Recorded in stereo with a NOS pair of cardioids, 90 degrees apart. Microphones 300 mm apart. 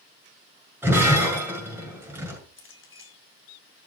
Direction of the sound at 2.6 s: 40° left.